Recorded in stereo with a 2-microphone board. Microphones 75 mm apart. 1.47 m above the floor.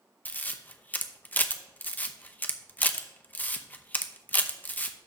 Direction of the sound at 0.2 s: 25° left (ahead or behind).